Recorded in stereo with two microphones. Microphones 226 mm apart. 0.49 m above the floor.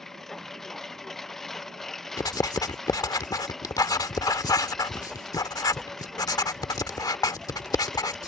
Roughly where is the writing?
Centre.